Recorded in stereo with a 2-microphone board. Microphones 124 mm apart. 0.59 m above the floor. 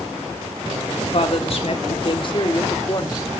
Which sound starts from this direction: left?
A woman speaking, at 1.1 s.